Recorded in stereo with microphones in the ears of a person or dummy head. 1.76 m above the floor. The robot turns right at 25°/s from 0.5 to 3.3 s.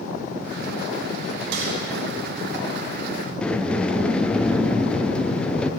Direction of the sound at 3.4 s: 10° left (ahead or behind).